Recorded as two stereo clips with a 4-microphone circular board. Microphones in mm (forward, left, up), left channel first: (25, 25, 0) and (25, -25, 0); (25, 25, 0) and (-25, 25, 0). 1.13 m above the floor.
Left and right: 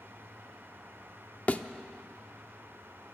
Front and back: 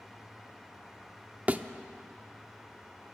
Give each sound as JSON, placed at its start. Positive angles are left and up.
{"t": 1.5, "sound": "a thud", "azimuth_deg": 135, "distance_m": 0.9}